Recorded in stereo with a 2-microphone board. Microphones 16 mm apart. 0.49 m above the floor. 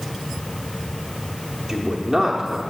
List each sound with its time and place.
1.7 s a man speaking: 30° right (ahead or behind), 0.8 m